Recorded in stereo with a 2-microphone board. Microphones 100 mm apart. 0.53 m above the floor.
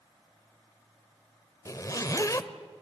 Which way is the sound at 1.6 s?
35° left (ahead or behind).